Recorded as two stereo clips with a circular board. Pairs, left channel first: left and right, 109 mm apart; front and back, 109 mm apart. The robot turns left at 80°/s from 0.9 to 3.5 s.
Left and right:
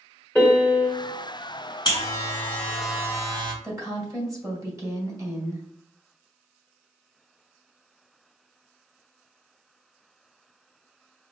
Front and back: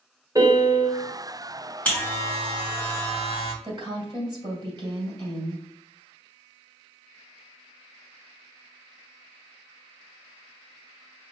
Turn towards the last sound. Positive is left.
turn(degrees=-145)